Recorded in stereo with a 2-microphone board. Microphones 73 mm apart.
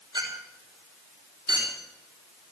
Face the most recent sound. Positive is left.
turn(degrees=-85)